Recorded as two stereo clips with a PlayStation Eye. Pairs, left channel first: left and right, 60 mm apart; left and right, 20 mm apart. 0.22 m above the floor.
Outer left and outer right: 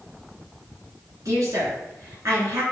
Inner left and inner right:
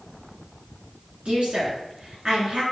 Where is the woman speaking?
60° right (ahead or behind), 3.5 m.